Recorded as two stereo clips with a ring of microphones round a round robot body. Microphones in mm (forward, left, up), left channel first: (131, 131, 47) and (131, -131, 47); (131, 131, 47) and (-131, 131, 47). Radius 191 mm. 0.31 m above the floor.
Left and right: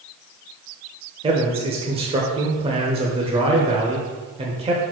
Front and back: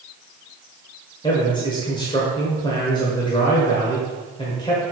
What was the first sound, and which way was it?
A man speaking, 50° right.